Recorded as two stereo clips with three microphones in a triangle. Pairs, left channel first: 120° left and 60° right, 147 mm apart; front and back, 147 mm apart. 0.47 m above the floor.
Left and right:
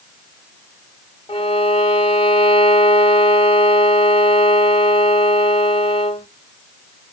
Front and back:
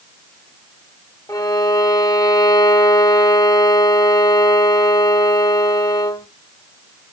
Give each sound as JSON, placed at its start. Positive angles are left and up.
{"t": 1.3, "sound": "a violin", "azimuth_deg": 70, "distance_m": 0.7}